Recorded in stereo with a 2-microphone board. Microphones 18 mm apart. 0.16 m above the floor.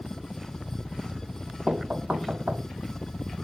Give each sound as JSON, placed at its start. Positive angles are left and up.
{"t": 0.0, "sound": "a helicopter", "side_deg": 50}
{"t": 1.7, "sound": "knocking", "side_deg": -70}